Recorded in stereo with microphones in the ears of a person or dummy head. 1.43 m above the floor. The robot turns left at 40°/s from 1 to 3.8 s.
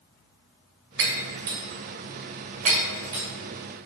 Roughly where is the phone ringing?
I don't hear a phone ringing.